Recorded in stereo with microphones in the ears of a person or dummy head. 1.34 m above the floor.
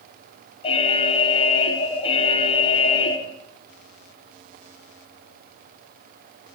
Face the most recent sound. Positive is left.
turn(degrees=35)  # may be behind; listen again after turning